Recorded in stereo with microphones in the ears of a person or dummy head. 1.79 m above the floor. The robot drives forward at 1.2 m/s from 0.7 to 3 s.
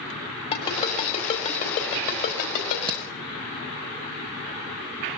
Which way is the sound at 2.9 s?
25° right (ahead or behind).